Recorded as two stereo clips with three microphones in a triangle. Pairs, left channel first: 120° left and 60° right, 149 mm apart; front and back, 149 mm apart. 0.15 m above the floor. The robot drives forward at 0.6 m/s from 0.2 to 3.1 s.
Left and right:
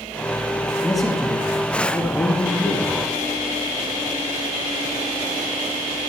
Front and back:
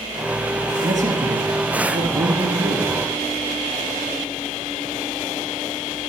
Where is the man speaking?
155° right, 2.5 m; by 2.9 s 165° right, 3.5 m.